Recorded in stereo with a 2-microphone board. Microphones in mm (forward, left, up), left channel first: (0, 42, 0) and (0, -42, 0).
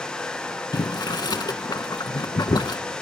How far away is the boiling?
About 0.5 m.